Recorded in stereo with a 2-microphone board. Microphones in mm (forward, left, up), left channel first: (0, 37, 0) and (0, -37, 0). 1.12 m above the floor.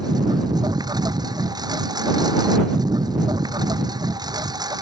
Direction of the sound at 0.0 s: 65° right (ahead or behind).